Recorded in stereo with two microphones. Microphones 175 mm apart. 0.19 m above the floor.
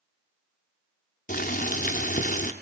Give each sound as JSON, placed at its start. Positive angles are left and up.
{"t": 1.3, "sound": "boiling", "side_deg": 50, "distance_m": 1.6}